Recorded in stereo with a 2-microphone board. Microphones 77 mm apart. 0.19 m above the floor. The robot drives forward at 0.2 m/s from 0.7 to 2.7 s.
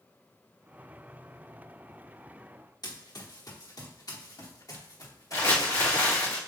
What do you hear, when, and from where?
2.8 s running footsteps: 55° left (ahead or behind), 2.5 m; by 6.3 s 40° left (ahead or behind), 5 m
5.3 s crumpling: 40° left (ahead or behind), 4.5 m